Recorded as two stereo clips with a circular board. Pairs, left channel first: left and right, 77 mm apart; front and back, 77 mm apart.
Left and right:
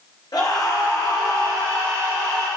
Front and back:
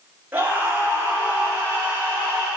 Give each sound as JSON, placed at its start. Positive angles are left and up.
{"t": 0.3, "sound": "a scream", "azimuth_deg": 120, "distance_m": 4.5}